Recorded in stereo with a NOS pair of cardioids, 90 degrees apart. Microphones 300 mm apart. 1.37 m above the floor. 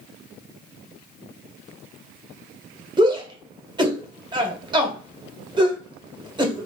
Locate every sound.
3.0 s a shout: 15° right, 1.0 m